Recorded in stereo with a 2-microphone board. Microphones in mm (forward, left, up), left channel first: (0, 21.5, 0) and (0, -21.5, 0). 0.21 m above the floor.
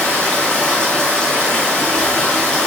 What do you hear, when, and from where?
0.0 s running water: 25° left (ahead or behind), 1.8 m